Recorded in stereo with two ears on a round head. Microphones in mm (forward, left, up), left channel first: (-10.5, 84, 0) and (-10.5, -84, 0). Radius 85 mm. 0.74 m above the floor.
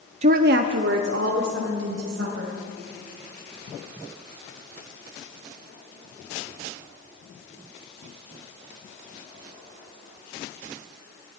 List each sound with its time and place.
0.2 s a woman speaking: 35° right (ahead or behind), 0.5 m; by 2.5 s 70° right (ahead or behind), 4 m